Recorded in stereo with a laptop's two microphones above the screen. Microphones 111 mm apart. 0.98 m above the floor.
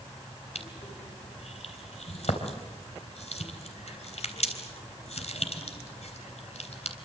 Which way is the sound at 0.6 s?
75° left (ahead or behind).